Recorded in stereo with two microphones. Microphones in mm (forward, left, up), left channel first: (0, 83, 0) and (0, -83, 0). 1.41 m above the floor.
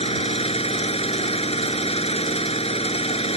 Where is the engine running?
35° left (ahead or behind).